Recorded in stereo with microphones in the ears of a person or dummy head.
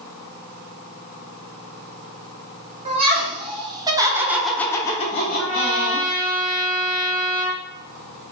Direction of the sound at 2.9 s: 30° right (ahead or behind).